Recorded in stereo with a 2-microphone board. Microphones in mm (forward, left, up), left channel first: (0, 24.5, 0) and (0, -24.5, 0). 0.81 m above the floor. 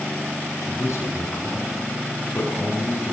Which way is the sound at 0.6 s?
80° left.